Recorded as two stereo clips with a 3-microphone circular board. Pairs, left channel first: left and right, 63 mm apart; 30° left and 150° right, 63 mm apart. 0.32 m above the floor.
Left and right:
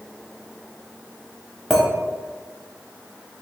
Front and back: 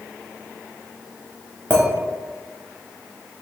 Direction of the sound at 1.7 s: 170° left.